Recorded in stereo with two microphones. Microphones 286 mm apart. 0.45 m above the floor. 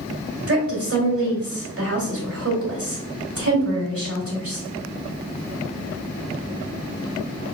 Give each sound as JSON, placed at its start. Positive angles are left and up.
{"t": 0.5, "sound": "a woman speaking", "side_deg": -50, "distance_m": 2.0}